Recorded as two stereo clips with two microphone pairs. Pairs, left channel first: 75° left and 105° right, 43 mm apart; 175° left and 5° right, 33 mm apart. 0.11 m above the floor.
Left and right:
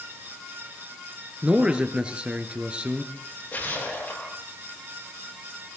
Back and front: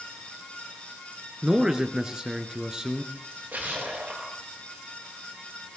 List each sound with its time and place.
1.4 s a man speaking: 60° right, 1.7 m
3.1 s a splash: 35° left, 9.5 m